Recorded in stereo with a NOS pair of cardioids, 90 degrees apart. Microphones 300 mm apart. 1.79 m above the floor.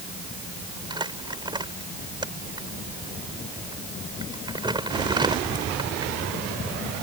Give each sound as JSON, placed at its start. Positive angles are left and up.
{"t": 0.9, "sound": "crumpling", "azimuth_deg": -15}